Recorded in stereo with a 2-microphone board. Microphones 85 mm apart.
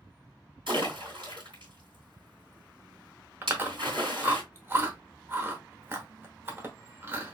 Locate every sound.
0.7 s a splash: 70° right (ahead or behind), 2.5 m
3.4 s chewing: 25° right (ahead or behind), 0.9 m